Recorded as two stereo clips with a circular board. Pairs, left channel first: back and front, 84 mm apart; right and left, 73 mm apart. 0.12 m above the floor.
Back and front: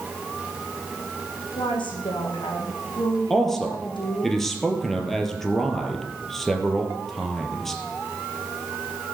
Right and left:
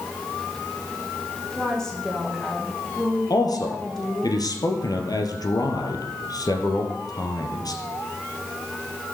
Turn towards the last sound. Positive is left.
turn(degrees=-95)